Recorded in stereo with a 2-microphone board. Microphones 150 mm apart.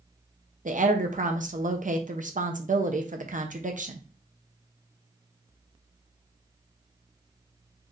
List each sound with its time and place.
0.7 s a woman speaking: 55° right (ahead or behind), 0.7 m